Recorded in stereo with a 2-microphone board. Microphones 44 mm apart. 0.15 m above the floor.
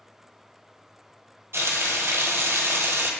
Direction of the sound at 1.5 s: 75° right (ahead or behind).